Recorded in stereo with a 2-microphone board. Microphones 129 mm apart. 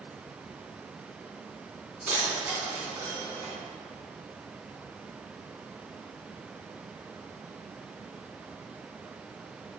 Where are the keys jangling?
15° right (ahead or behind), 3 m.